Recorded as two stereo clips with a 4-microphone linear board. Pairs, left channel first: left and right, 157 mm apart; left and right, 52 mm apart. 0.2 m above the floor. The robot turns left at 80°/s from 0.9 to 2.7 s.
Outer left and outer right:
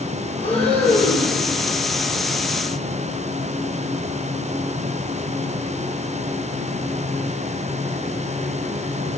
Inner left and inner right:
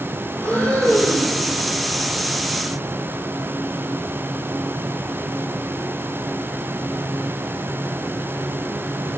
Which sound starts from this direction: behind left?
Breathing, at 0.4 s.